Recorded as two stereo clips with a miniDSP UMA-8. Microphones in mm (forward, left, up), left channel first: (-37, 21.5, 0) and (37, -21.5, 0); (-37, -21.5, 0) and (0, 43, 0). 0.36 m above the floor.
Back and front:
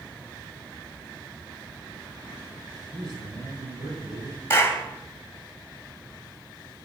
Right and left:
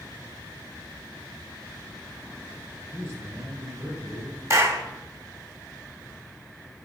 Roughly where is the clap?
Left.